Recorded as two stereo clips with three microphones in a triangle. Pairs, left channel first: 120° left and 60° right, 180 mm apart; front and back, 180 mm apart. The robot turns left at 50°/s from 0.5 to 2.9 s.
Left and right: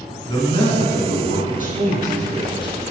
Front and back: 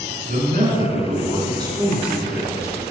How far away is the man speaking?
About 2.5 m.